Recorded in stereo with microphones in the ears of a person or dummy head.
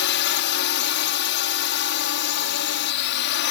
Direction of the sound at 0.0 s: 55° left (ahead or behind).